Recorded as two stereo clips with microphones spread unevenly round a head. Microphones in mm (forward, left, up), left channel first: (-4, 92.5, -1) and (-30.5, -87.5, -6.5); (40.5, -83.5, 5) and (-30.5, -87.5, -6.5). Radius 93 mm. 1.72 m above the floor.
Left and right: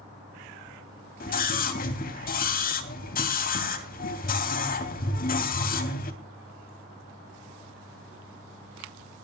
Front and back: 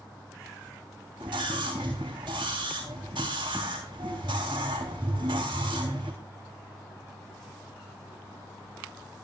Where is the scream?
125° left, 3 m.